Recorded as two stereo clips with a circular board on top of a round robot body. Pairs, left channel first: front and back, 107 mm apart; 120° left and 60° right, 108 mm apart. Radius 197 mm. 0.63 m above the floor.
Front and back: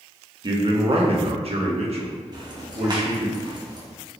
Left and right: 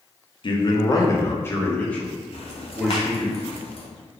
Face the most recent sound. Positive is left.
turn(degrees=135)